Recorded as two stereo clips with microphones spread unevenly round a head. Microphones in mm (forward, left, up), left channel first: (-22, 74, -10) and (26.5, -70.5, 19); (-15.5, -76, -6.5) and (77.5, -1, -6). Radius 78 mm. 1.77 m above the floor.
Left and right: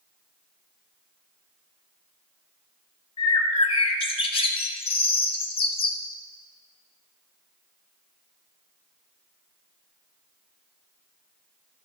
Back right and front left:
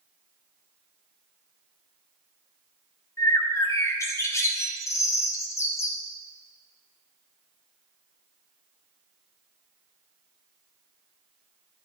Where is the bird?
160° left, 0.9 m.